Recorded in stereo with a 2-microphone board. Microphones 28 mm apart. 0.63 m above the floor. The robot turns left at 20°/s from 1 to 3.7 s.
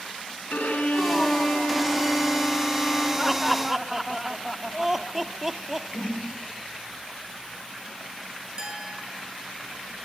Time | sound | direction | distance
0.5 | a violin | 70° left | 6 m
3.2 | laughter | 10° right (ahead or behind) | 1.4 m
5.9 | a whoosh | 75° left (ahead or behind) | 7 m
8.6 | a clink | 25° right (ahead or behind) | 7.5 m